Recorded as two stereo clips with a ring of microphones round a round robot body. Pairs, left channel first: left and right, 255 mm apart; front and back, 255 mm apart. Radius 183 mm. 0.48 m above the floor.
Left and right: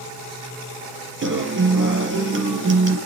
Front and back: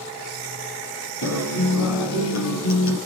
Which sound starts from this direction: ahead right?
A guitar, at 1.2 s.